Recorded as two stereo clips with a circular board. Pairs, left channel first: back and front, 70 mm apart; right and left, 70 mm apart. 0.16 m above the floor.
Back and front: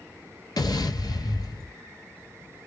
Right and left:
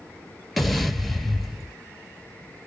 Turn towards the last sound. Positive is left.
turn(degrees=180)